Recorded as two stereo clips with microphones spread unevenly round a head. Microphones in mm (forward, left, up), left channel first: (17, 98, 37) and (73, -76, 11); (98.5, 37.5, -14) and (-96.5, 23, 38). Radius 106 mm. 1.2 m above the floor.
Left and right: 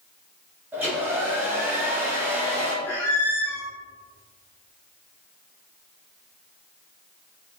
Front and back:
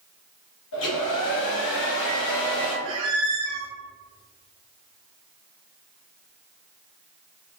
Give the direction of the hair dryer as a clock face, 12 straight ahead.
12 o'clock.